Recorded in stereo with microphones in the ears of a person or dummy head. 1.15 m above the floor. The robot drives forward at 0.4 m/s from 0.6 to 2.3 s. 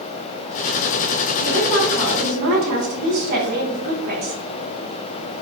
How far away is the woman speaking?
About 2 m.